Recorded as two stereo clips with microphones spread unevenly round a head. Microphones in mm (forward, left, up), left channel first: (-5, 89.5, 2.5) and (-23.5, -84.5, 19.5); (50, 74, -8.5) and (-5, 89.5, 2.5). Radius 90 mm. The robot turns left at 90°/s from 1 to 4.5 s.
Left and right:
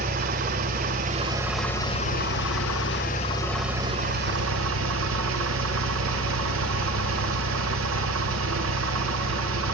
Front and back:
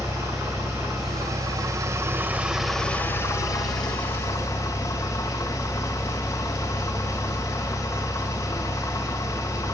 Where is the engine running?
130° right, 2.5 m; by 9.7 s 85° right, 2.5 m.